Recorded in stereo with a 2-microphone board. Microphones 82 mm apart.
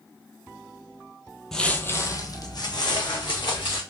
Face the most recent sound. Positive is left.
turn(degrees=70)  # may be behind; listen again after turning